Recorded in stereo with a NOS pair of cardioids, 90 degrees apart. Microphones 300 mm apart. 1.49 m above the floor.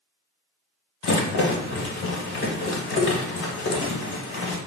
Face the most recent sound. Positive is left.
turn(degrees=45)